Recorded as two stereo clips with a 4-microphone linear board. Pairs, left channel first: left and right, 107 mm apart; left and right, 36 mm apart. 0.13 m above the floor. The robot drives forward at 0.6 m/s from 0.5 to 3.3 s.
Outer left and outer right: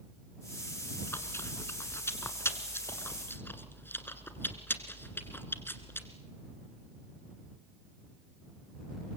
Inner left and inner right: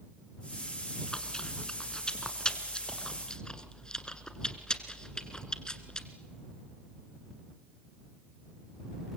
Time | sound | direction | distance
1.1 | chewing | 25° left (ahead or behind) | 1.6 m